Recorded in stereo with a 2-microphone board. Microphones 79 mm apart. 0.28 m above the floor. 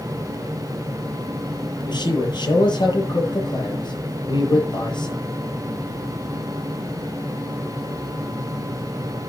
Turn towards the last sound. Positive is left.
turn(degrees=70)  # may be behind; listen again after turning